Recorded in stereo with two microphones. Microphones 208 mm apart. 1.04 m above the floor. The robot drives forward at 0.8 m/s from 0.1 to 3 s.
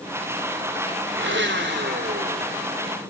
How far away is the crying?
No crying in this recording.